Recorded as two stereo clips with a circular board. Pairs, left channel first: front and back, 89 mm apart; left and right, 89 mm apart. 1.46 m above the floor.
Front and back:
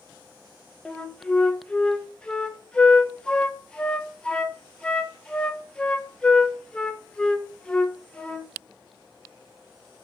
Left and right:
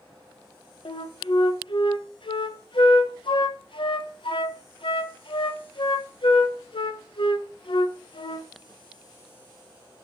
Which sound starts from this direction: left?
A flute, at 0.8 s.